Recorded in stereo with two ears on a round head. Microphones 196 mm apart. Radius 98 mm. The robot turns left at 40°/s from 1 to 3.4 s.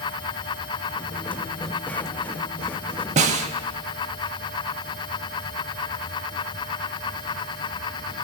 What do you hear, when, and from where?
3.2 s a snare drum: 35° right (ahead or behind), 0.6 m; by 3.5 s 30° right (ahead or behind), 0.6 m